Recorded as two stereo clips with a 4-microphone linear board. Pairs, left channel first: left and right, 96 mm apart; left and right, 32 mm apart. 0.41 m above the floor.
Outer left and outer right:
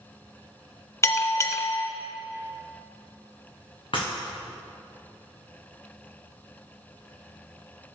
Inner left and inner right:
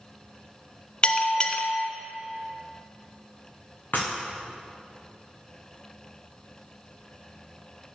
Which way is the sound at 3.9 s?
60° left (ahead or behind).